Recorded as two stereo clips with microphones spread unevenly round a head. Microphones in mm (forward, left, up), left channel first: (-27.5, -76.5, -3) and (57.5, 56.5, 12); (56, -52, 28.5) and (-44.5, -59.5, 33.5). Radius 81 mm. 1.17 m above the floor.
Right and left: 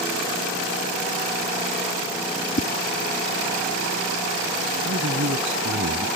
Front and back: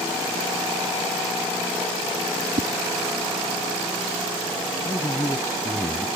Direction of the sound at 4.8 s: 75° left.